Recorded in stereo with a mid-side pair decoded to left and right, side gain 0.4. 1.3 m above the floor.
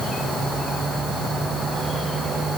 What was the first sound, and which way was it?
Only background noise.